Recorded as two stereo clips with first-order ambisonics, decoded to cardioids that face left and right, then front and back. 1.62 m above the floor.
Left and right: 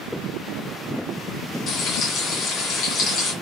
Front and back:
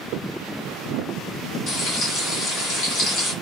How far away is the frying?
About 1.5 m.